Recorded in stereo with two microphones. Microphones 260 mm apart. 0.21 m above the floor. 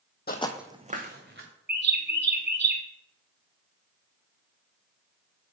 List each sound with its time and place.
0.3 s footsteps: 40° left (ahead or behind), 0.6 m; by 1.5 s 45° right (ahead or behind), 1.7 m
1.7 s a bird: 40° right (ahead or behind), 0.9 m